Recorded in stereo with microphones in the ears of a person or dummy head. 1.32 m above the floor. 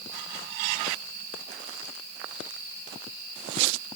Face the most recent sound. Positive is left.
No sound to turn to.